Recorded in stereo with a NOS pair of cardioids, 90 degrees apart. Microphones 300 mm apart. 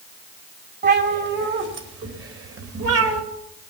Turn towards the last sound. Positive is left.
turn(degrees=-55)